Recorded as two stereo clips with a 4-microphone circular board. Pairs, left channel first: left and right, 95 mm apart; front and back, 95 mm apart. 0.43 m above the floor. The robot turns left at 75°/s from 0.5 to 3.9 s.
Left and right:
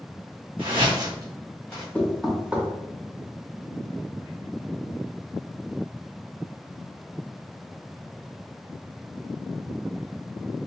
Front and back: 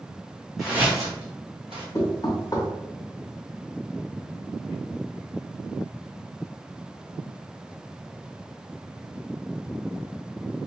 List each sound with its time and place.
0.6 s footsteps: 90° right, 1.4 m; by 1.9 s 155° left, 1.8 m
1.9 s knocking: 25° left, 0.8 m; by 2.7 s 30° right, 0.8 m